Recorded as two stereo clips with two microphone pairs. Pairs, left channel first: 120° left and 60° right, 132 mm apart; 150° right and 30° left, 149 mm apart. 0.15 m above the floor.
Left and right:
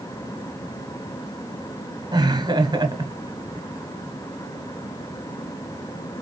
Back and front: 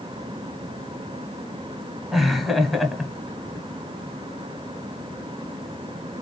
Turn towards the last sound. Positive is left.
turn(degrees=-60)